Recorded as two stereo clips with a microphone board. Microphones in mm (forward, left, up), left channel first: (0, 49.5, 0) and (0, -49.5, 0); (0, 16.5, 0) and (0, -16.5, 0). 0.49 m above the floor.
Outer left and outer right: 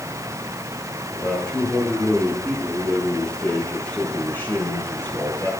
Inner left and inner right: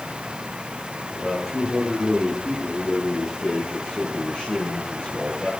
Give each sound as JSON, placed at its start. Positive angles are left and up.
{"t": 1.1, "sound": "a man speaking", "side_deg": 5, "distance_m": 8.5}